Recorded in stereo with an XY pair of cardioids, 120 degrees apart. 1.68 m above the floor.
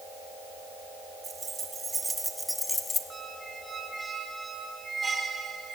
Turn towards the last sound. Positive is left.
turn(degrees=-20)